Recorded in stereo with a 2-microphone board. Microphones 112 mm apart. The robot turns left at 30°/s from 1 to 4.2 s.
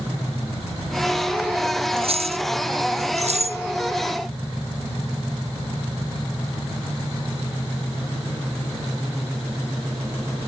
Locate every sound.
2.0 s keys jangling: 55° right (ahead or behind); by 3.6 s 70° right (ahead or behind)